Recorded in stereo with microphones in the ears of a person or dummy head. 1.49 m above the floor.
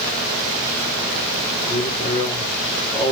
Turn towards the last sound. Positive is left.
turn(degrees=30)  # may be behind; listen again after turning